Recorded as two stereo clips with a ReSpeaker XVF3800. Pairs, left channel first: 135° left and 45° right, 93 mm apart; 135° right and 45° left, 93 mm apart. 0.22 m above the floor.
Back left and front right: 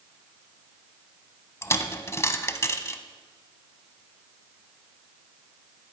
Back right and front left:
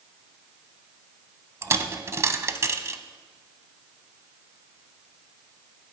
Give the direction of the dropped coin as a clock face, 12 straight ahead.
9 o'clock.